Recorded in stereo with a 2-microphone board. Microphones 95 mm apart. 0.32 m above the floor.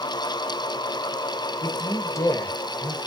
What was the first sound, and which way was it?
A man speaking, 35° left (ahead or behind).